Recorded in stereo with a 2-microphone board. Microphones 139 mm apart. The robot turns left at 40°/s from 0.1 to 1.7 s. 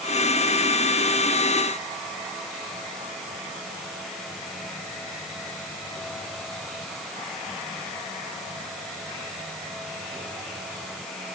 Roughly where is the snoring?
No snoring in this recording.